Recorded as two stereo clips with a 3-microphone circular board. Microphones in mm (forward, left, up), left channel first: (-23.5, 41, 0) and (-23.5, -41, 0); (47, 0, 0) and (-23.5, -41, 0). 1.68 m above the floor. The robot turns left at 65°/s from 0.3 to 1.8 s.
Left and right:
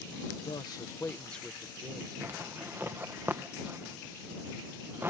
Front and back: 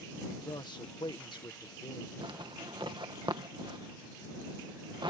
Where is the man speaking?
70° left; by 2.1 s 20° right.